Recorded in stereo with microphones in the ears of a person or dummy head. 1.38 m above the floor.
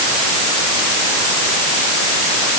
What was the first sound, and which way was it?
Only background noise.